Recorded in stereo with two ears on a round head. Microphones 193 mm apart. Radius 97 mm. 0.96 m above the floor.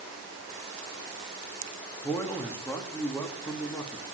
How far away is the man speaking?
About 2.0 m.